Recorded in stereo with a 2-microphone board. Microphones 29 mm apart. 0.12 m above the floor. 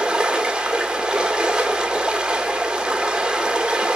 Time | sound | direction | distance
0.0 | running water | 30° right (ahead or behind) | 1.1 m